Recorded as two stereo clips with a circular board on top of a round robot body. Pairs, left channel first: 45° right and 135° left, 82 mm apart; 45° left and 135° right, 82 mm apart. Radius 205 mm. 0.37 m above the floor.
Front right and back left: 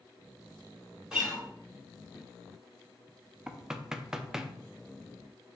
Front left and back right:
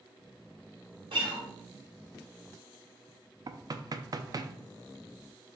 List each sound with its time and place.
1.1 s a guitar: 140° right, 1.2 m
3.5 s knocking: 145° right, 0.6 m